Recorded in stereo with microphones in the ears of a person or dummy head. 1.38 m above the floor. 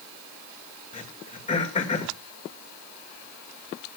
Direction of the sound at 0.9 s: 35° left (ahead or behind).